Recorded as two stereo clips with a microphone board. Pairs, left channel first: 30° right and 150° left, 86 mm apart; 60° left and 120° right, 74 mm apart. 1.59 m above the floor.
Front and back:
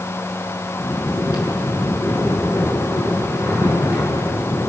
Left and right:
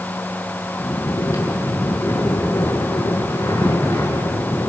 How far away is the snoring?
About 7 m.